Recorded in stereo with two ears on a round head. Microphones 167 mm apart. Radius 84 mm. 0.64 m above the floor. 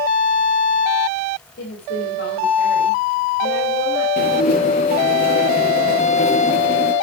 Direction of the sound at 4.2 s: 45° left (ahead or behind).